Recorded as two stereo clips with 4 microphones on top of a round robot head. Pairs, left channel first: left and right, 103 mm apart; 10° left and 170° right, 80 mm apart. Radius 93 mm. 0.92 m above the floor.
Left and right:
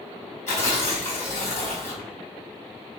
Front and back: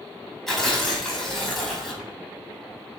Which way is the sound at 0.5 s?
95° left.